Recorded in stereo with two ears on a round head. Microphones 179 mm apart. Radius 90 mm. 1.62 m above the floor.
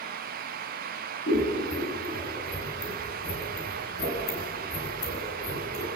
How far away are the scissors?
About 5.5 m.